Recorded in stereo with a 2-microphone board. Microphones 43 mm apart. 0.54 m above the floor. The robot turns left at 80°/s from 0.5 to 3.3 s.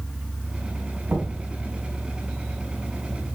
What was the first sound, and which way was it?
Knocking, 65° right (ahead or behind).